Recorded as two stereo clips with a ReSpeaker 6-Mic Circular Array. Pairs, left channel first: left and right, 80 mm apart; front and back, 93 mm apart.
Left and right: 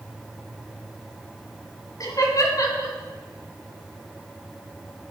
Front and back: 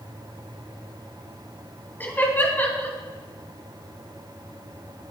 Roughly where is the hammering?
No hammering in this recording.